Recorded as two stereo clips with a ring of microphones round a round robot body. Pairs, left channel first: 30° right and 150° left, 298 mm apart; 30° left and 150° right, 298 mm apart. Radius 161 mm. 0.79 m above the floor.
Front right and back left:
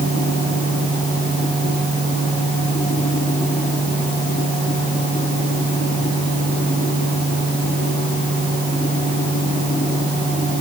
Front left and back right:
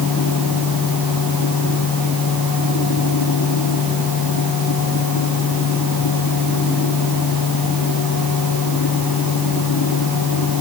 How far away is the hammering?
No hammering in this recording.